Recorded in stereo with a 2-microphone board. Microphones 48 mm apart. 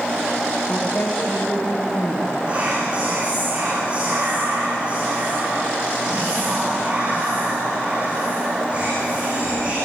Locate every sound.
0.7 s a woman speaking: 60° left (ahead or behind), 8 m
2.5 s whispering: 25° right (ahead or behind), 5 m